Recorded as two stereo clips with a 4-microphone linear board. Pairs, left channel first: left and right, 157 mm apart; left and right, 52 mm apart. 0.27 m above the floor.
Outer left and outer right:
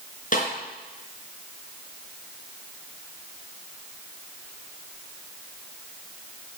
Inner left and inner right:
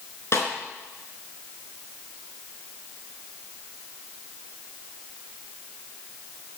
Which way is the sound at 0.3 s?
55° left (ahead or behind).